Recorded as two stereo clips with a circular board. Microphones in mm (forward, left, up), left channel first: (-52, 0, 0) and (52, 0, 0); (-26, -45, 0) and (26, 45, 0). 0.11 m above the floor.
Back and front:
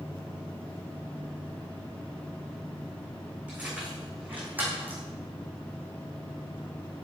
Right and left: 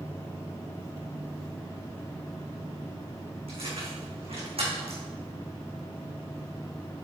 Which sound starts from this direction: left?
Keys jangling, at 3.5 s.